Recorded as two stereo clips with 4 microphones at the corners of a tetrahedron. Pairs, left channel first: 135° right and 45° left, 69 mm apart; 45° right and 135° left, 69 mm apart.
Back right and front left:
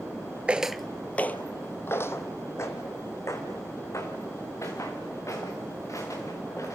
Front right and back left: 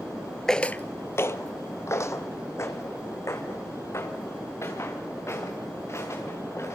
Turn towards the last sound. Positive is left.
turn(degrees=-95)